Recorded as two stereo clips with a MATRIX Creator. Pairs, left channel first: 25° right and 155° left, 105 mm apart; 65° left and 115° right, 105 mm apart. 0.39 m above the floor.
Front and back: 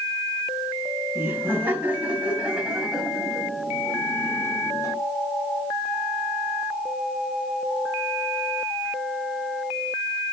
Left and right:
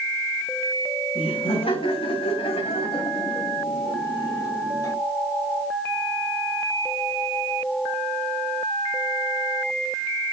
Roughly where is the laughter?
Left.